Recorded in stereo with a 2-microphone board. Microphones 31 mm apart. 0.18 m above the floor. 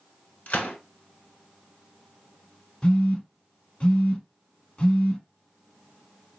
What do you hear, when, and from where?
0.5 s a gunshot: 55° left (ahead or behind), 1.0 m
2.8 s a phone buzzing: 35° left (ahead or behind), 0.7 m